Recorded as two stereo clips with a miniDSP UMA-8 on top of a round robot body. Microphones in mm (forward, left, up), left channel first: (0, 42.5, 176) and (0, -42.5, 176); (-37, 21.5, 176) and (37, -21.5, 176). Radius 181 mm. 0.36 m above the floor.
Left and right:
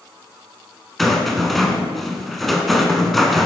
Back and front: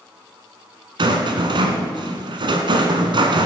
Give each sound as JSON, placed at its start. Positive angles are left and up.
{"t": 1.0, "sound": "a rattle", "azimuth_deg": 0, "distance_m": 1.0}